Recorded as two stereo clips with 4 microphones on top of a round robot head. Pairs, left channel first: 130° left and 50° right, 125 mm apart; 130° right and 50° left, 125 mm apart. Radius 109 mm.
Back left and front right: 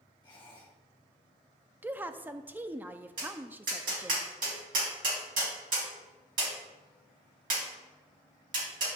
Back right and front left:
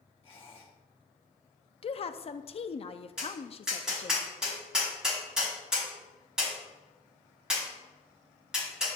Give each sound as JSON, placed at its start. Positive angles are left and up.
{"t": 0.2, "sound": "a squeak", "azimuth_deg": -175, "distance_m": 1.4}
{"t": 1.8, "sound": "a woman speaking", "azimuth_deg": -120, "distance_m": 0.6}
{"t": 3.2, "sound": "tapping", "azimuth_deg": -35, "distance_m": 3.0}